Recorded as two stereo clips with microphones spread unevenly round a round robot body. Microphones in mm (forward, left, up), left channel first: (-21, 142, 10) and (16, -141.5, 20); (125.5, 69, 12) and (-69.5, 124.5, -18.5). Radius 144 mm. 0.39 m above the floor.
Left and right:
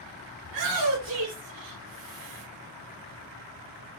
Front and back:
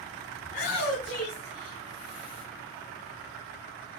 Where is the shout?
80° right, 3.5 m; by 2.4 s 100° right, 4 m.